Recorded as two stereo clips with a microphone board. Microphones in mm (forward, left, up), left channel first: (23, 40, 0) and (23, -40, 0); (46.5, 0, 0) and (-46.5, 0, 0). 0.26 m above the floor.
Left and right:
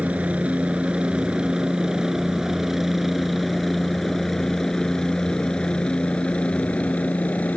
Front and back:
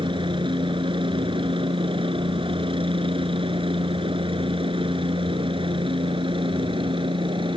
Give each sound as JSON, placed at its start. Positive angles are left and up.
{"t": 0.0, "sound": "a helicopter", "azimuth_deg": -160}